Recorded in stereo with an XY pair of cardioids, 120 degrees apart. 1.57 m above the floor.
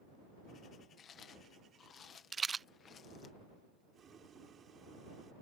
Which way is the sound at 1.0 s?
45° left.